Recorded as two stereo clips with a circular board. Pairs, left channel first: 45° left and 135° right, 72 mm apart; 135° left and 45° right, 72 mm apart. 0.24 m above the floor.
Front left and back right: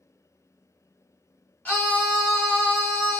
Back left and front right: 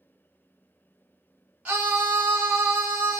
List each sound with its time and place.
1.6 s a scream: straight ahead, 1.1 m